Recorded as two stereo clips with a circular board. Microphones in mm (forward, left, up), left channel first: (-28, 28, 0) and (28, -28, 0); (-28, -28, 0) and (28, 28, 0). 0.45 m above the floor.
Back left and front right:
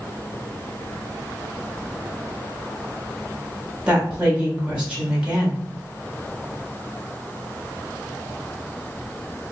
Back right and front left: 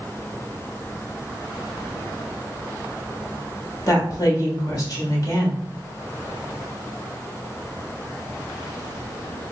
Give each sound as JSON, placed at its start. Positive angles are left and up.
{"t": 3.9, "sound": "a woman speaking", "azimuth_deg": -115, "distance_m": 1.4}